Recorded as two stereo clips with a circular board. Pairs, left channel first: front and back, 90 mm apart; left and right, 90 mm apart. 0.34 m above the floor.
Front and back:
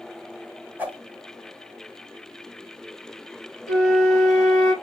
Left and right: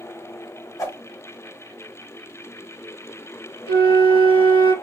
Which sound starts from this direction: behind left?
A whoosh, at 0.8 s.